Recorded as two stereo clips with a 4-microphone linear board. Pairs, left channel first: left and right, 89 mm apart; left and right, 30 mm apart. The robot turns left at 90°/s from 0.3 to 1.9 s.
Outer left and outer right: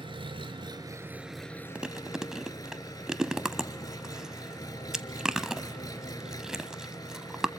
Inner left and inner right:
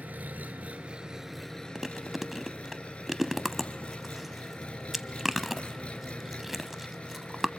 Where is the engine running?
80° right, 1.3 m; by 7.6 s 135° left, 1.3 m.